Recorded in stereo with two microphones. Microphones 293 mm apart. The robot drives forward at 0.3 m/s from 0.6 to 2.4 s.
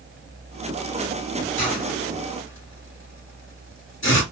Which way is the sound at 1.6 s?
45° left (ahead or behind).